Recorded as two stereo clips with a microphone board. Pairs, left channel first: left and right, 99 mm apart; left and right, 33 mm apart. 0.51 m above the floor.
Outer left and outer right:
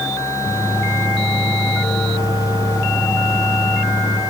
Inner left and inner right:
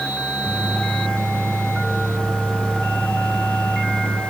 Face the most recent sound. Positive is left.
turn(degrees=75)  # may be behind; listen again after turning